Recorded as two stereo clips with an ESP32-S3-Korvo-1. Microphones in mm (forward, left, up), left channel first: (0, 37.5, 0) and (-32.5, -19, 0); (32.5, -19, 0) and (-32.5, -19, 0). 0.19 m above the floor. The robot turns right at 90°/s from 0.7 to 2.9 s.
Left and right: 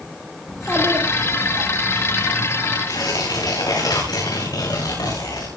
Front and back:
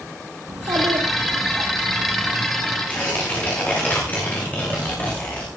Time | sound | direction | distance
0.5 | a child speaking | 155° left | 6 m
2.9 | tearing paper | 65° left | 10 m